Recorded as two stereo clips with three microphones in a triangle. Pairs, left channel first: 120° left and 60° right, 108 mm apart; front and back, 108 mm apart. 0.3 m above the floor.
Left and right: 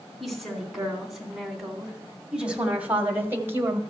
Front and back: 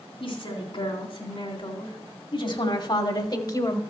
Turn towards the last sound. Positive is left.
turn(degrees=-20)